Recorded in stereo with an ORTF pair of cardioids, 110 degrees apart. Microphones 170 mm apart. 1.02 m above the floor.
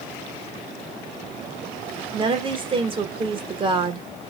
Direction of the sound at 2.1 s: 30° right.